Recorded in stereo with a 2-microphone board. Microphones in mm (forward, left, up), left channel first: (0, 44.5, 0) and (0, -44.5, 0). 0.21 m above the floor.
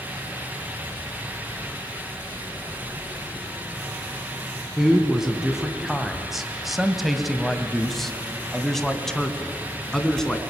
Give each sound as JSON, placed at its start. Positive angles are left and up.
{"t": 4.8, "sound": "a man speaking", "side_deg": -5, "distance_m": 1.8}